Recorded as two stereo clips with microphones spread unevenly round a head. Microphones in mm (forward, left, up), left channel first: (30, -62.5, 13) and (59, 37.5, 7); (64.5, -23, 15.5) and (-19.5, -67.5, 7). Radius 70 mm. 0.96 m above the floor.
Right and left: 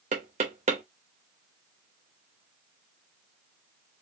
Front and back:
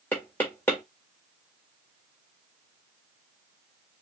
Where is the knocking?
105° left, 1.2 m.